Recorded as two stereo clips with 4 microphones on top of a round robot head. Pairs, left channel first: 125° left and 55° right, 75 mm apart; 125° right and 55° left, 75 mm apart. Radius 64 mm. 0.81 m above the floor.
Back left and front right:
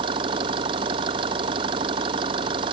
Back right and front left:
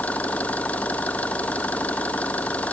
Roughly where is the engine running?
Ahead right.